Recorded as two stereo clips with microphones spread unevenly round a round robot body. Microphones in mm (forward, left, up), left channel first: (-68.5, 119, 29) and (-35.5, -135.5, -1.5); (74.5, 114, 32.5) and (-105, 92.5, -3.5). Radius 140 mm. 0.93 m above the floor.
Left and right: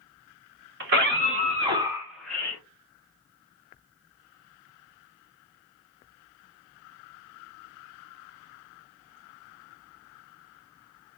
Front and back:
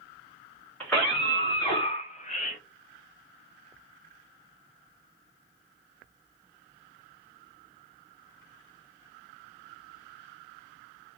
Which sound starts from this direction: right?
A scream, at 0.8 s.